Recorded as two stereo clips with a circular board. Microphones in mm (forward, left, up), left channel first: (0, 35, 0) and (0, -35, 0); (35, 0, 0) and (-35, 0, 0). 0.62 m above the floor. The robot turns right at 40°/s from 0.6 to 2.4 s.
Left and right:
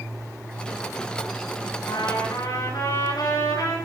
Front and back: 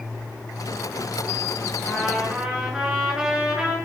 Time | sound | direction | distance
1.9 | a trumpet | 80° left | 6.5 m